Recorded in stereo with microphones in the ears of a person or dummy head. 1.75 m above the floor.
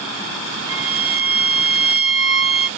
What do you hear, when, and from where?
0.7 s a violin: 20° right (ahead or behind), 1.1 m